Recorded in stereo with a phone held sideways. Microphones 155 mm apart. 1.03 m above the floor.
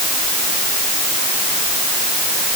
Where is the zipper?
I don't hear a zipper.